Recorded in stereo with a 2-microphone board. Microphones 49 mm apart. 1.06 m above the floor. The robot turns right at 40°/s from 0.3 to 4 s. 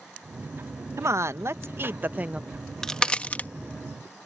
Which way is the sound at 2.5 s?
Centre (ahead or behind).